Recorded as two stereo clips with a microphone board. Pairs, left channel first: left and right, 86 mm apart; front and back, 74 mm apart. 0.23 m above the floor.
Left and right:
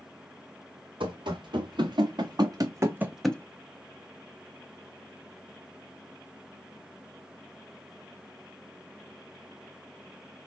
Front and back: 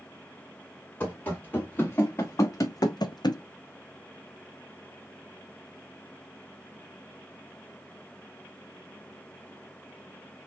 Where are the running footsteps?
65° right, 2.0 m; by 3.4 s 15° left, 0.5 m.